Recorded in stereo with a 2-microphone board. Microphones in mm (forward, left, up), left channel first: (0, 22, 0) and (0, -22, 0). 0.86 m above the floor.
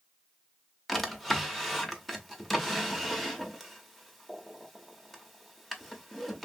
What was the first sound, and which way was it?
A drawer, 5° left (ahead or behind).